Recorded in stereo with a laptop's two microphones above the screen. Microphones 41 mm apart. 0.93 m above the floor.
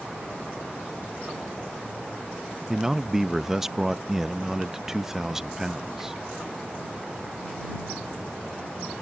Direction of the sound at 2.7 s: 5° right (ahead or behind).